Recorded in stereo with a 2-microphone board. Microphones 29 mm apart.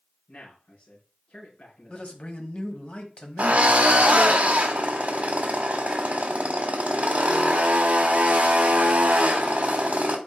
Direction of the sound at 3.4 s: 50° right (ahead or behind).